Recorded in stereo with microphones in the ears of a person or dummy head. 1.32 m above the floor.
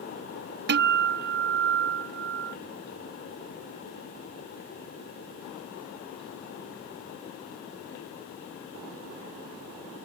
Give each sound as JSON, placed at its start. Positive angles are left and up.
{"t": 0.7, "sound": "a guitar", "side_deg": -50}